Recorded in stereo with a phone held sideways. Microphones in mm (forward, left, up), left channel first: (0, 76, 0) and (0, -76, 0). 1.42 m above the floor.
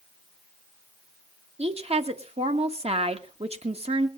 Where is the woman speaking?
45° right (ahead or behind), 1.6 m.